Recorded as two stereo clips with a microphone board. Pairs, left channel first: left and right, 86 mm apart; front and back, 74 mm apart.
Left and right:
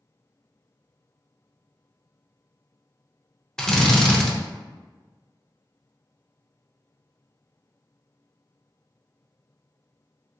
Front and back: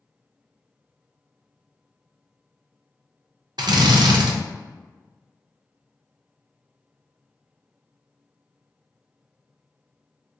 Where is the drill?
170° left, 0.5 m.